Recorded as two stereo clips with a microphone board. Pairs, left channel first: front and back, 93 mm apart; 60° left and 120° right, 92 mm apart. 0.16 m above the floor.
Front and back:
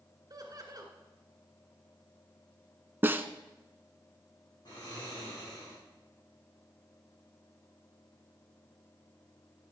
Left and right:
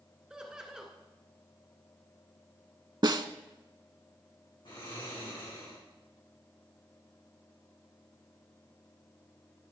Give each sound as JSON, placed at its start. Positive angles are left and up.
{"t": 0.3, "sound": "laughter", "azimuth_deg": 160, "distance_m": 2.0}
{"t": 3.0, "sound": "a snare drum", "azimuth_deg": -125, "distance_m": 0.5}
{"t": 4.7, "sound": "snoring", "azimuth_deg": 35, "distance_m": 6.0}